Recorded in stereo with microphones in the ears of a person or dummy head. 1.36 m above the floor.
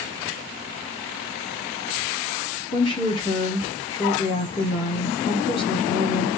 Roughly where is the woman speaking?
Centre.